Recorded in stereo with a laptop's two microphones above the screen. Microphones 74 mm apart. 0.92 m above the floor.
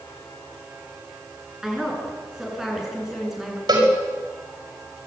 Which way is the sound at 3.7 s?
70° right (ahead or behind).